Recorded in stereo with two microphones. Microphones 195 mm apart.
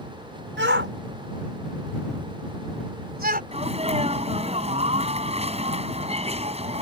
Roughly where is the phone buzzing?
No phone buzzing in this recording.